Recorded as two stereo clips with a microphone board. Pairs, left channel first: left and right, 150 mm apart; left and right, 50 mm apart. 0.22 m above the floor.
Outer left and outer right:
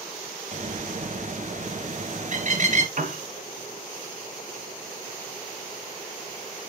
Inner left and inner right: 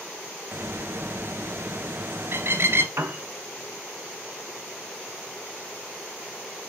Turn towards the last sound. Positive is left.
turn(degrees=-60)  # may be behind; listen again after turning